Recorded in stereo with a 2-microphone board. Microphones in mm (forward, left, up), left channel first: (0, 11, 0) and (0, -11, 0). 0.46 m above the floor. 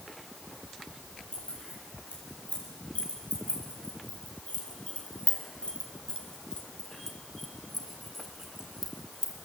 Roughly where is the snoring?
I don't hear snoring.